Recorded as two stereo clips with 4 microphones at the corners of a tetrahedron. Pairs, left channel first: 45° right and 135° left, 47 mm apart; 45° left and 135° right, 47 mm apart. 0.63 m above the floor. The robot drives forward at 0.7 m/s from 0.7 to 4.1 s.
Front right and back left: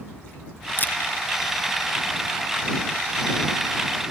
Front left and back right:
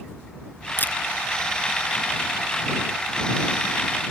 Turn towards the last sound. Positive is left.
turn(degrees=180)